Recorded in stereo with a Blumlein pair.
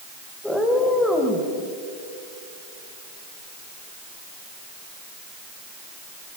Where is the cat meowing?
5° left, 3 m.